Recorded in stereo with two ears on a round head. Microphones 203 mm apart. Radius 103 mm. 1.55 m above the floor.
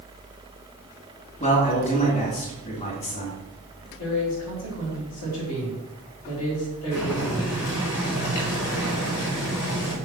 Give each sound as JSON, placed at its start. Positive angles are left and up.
{"t": 1.4, "sound": "a man speaking", "side_deg": 30, "distance_m": 3.5}
{"t": 4.0, "sound": "a man speaking", "side_deg": 75, "distance_m": 5.5}
{"t": 6.9, "sound": "boiling", "side_deg": 85, "distance_m": 4.5}